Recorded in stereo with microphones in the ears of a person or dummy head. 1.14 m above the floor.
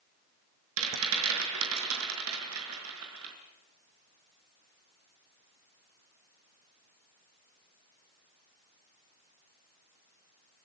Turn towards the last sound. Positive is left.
turn(degrees=-80)